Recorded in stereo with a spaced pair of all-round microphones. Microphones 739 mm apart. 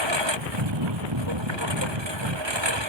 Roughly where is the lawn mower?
Right.